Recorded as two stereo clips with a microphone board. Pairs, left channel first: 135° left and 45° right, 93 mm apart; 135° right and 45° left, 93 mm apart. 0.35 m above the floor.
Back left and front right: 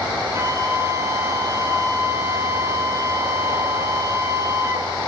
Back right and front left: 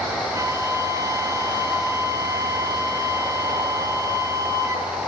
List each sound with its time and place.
0.3 s a flute: 5° left, 2 m